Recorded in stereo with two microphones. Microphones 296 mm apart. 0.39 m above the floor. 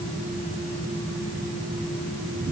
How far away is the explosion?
I don't hear an explosion.